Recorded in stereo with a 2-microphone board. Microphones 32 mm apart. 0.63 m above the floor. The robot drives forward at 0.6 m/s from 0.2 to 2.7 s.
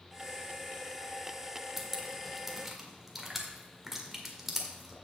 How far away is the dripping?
About 1.2 m.